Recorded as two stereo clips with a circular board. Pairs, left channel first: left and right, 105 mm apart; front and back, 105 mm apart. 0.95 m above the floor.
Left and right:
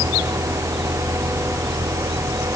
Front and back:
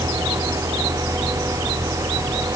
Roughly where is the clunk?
I don't hear a clunk.